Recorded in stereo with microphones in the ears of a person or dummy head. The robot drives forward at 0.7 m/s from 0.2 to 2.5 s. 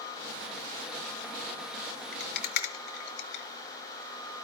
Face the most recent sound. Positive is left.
turn(degrees=65)  # may be behind; listen again after turning